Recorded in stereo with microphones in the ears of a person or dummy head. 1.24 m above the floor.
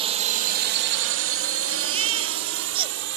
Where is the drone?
30° right (ahead or behind); by 3.2 s 65° right (ahead or behind).